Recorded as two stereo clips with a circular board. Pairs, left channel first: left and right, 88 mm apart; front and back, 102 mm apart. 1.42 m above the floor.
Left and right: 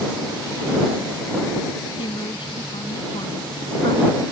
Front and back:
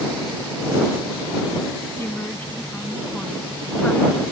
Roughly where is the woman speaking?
Left.